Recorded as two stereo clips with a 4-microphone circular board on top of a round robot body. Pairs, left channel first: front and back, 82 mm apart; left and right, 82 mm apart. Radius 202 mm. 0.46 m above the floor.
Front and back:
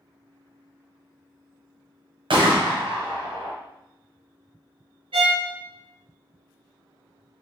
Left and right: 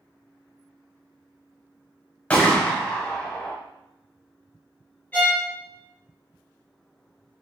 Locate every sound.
2.3 s a gunshot: 165° left, 0.9 m
5.1 s a violin: 165° left, 0.5 m